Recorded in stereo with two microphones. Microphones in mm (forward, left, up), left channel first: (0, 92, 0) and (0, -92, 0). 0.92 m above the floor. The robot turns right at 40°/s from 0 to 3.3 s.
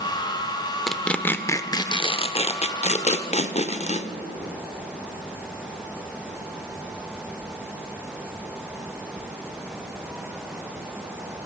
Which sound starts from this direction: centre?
Tearing paper, at 0.9 s.